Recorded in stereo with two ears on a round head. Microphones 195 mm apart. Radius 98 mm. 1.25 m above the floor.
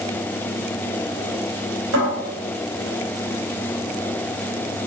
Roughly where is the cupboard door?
Right.